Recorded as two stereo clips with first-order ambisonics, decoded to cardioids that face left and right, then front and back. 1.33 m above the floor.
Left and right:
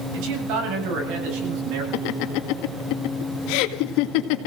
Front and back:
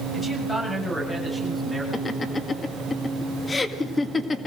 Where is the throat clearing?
I don't hear throat clearing.